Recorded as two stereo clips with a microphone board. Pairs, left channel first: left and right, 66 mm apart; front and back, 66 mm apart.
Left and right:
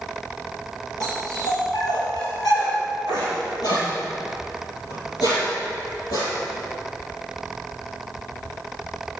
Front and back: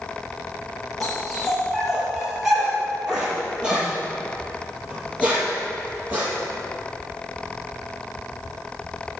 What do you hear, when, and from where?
1.0 s a dog barking: 90° left, 6 m; by 6.3 s 115° left, 7 m